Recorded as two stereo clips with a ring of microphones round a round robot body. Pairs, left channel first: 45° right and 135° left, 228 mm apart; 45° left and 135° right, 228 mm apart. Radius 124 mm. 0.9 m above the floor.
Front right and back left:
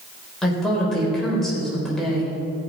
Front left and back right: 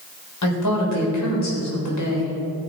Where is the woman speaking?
45° left, 4 m.